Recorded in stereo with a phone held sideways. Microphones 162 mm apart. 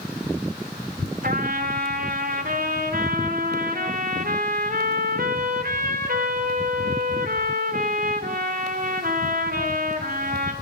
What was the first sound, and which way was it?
A trumpet, 65° right (ahead or behind).